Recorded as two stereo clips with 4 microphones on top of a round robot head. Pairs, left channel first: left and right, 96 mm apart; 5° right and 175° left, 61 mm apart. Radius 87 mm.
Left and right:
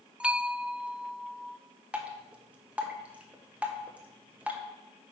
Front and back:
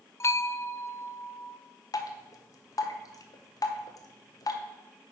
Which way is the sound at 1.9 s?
15° right.